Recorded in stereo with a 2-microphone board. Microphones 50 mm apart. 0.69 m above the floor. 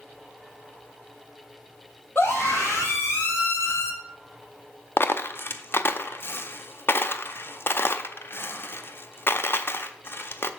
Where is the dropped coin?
50° left (ahead or behind), 0.5 m.